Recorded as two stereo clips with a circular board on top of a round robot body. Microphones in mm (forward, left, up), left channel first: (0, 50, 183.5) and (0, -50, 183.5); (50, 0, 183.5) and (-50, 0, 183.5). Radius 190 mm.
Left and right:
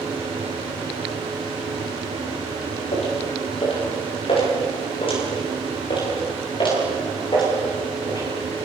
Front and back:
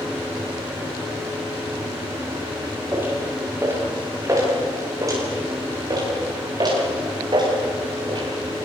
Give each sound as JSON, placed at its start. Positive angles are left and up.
{"t": 2.9, "sound": "footsteps", "azimuth_deg": 110, "distance_m": 9.5}